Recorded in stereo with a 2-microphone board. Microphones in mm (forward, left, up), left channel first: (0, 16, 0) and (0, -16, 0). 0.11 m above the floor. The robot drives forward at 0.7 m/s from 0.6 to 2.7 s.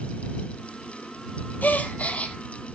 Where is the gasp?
65° left (ahead or behind), 0.9 m; by 2.4 s 45° left (ahead or behind), 1.1 m.